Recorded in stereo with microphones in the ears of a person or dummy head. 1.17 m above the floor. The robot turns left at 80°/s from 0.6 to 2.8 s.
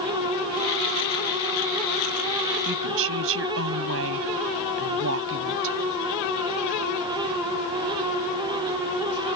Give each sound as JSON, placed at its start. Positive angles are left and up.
{"t": 2.6, "sound": "a woman speaking", "side_deg": -55}